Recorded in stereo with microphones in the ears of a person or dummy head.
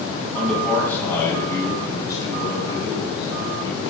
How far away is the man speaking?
About 7.5 m.